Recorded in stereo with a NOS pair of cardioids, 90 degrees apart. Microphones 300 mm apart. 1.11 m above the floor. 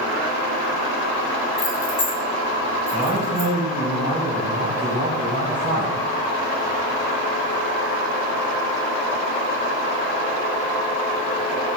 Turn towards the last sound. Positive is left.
turn(degrees=-15)